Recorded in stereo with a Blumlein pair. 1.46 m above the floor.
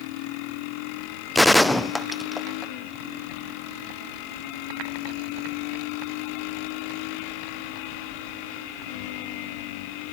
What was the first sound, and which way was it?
A gunshot, 5° left.